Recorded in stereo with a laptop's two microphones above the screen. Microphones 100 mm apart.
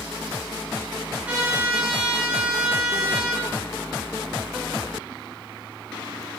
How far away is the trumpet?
About 1.4 m.